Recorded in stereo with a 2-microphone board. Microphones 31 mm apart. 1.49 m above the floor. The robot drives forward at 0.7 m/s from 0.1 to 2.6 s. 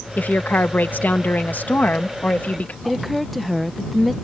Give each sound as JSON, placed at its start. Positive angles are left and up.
{"t": 0.2, "sound": "a woman speaking", "side_deg": 75}
{"t": 2.9, "sound": "a woman speaking", "side_deg": 0}